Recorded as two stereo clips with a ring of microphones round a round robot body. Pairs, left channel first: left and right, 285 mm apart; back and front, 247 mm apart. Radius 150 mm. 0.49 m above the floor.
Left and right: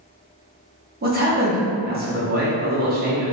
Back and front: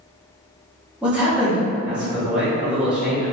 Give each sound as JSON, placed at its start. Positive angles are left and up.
{"t": 1.0, "sound": "a man speaking", "azimuth_deg": -80, "distance_m": 0.9}